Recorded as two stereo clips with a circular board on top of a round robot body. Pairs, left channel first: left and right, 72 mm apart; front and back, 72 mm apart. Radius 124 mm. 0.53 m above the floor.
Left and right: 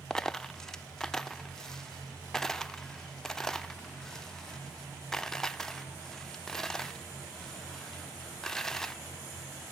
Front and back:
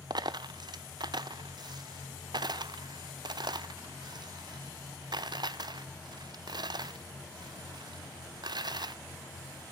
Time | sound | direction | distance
0.1 | a dropped coin | 170° left | 0.5 m